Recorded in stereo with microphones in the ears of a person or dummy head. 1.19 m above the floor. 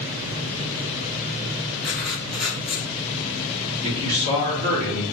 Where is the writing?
5° right (ahead or behind), 1.4 m.